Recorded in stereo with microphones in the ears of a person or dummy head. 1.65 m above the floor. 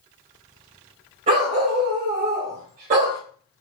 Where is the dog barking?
25° right (ahead or behind), 1.4 m; by 3.2 s 45° right (ahead or behind), 2 m.